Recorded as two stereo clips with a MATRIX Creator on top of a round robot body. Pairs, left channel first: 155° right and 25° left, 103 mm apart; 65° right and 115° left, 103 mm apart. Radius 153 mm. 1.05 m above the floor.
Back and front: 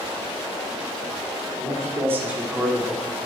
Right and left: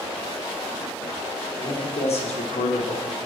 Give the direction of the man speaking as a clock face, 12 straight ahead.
1 o'clock.